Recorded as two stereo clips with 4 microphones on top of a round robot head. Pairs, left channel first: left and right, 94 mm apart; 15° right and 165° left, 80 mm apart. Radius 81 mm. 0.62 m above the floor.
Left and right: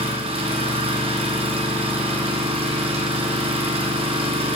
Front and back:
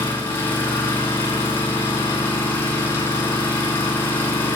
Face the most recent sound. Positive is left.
turn(degrees=-75)